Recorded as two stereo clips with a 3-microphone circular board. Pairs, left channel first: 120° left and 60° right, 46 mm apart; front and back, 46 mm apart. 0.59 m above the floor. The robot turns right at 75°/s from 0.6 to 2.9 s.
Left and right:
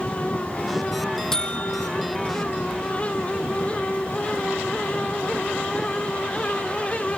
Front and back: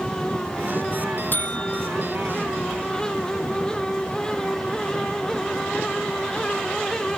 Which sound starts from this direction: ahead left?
A buzzer, at 1.3 s.